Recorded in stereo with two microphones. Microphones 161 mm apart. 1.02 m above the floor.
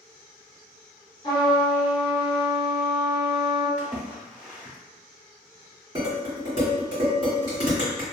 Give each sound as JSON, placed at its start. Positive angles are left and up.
{"t": 1.2, "sound": "a trumpet", "side_deg": 25, "distance_m": 1.3}
{"t": 3.8, "sound": "a splash", "side_deg": -5, "distance_m": 0.7}
{"t": 6.0, "sound": "dishes clattering", "side_deg": -35, "distance_m": 1.6}